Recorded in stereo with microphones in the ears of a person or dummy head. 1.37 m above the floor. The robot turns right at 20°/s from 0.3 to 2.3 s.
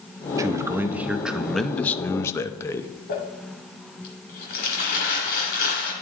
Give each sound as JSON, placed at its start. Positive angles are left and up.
{"t": 0.4, "sound": "a man speaking", "azimuth_deg": -15, "distance_m": 0.6}
{"t": 3.1, "sound": "crumpling", "side_deg": 45, "distance_m": 1.9}